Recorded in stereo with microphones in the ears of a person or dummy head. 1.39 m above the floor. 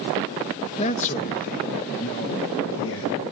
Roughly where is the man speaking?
Left.